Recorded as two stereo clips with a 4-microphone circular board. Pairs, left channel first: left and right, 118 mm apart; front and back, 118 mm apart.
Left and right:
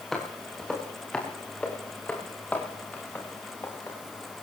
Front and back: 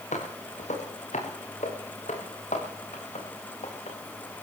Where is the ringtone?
No ringtone in this recording.